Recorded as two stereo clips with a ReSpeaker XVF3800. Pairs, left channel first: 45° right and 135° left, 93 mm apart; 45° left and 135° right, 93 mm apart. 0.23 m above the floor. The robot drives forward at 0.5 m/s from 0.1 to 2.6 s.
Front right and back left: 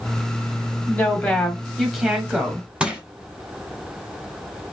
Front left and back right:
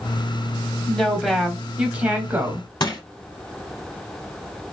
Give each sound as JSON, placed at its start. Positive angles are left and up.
{"t": 0.9, "sound": "a woman speaking", "azimuth_deg": -20, "distance_m": 1.1}
{"t": 2.8, "sound": "crushing", "azimuth_deg": 60, "distance_m": 1.2}